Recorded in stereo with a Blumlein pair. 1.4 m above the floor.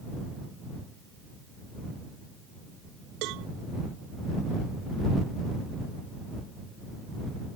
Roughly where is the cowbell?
Ahead right.